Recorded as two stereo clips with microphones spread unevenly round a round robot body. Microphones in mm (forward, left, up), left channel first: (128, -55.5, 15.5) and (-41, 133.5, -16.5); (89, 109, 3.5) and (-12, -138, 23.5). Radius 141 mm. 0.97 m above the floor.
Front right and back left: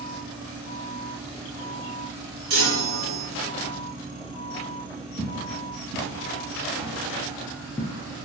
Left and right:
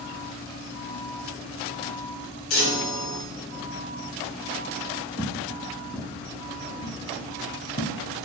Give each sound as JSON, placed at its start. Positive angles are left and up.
{"t": 2.5, "sound": "a chime", "azimuth_deg": 100, "distance_m": 1.8}
{"t": 5.2, "sound": "footsteps", "azimuth_deg": 175, "distance_m": 1.4}